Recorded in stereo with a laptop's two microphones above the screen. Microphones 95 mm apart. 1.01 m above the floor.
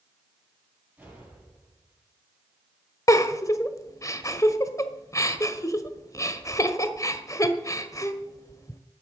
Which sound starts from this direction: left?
A giggle, at 3.1 s.